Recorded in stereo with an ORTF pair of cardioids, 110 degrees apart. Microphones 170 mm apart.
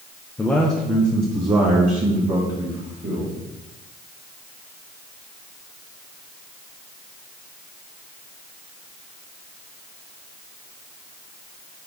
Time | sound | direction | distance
0.4 | a man speaking | 15° left | 0.8 m